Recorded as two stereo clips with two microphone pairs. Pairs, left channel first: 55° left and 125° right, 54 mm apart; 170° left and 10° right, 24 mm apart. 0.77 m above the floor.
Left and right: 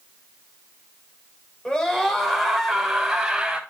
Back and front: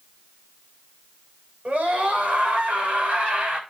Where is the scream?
20° right, 5 m; by 3.6 s 45° right, 6 m.